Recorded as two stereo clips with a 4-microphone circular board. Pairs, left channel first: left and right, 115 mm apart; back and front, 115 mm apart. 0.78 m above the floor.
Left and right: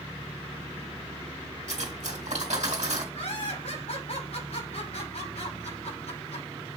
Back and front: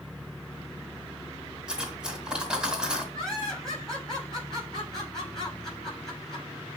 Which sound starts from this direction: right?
Cutlery clinking, at 1.7 s.